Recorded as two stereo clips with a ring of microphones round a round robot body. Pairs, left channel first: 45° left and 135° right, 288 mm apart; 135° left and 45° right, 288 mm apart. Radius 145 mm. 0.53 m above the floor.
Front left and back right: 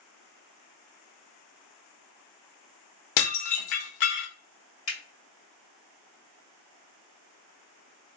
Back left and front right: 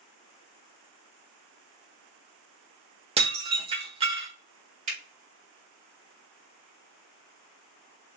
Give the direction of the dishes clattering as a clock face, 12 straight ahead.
11 o'clock.